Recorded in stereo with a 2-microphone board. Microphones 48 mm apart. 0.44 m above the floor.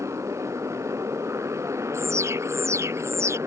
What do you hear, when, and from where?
0.0 s a motorcycle: 70° right (ahead or behind); by 3.5 s 65° right (ahead or behind)
1.9 s an alarm: 65° right (ahead or behind)